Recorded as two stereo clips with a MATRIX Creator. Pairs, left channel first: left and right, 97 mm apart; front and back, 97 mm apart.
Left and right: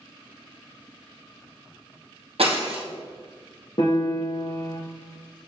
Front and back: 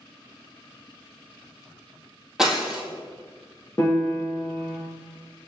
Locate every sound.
2.4 s breaking glass: 95° right, 1.5 m
3.8 s a piano: 65° left, 2 m